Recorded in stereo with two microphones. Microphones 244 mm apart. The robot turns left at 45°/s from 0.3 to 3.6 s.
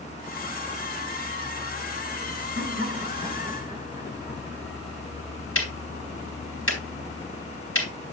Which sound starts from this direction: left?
Ticking, at 5.5 s.